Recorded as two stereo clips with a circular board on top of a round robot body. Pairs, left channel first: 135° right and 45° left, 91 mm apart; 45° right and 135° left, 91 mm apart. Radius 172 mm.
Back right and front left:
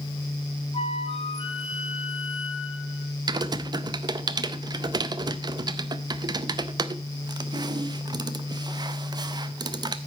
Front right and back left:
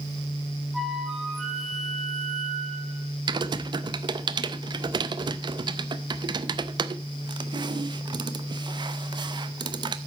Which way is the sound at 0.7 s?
135° right.